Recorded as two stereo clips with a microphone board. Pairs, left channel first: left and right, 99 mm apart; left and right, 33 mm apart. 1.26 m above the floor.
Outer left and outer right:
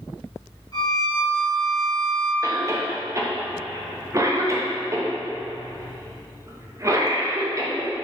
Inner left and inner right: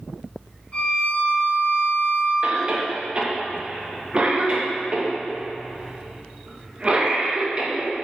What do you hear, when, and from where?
0.7 s a violin: 45° left (ahead or behind), 1.2 m
2.4 s a cough: 30° right (ahead or behind), 0.6 m